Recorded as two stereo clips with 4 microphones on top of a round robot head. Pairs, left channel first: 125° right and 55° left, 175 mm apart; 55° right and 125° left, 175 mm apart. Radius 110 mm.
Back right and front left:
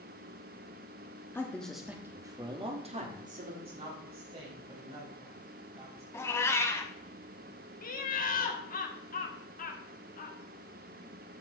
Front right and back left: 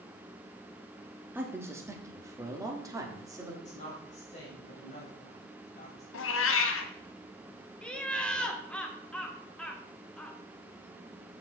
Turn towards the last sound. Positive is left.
turn(degrees=-135)